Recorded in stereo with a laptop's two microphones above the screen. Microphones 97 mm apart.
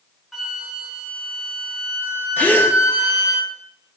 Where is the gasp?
20° left (ahead or behind), 1.9 m.